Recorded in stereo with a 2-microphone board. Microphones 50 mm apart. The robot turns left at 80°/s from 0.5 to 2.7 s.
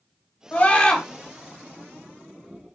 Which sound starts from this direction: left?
A scream, at 0.5 s.